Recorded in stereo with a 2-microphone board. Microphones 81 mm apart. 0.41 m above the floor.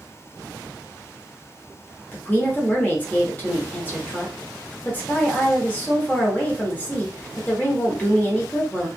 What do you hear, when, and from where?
2.1 s a woman speaking: 20° left (ahead or behind), 1.1 m